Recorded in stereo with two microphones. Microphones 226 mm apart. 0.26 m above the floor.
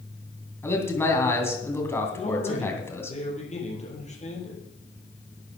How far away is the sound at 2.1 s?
About 6 m.